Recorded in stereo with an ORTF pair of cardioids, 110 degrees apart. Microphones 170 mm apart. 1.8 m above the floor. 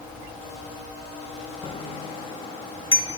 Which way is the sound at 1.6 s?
35° left.